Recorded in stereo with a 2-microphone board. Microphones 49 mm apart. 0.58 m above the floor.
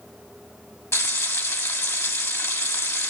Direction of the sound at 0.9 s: 65° left (ahead or behind).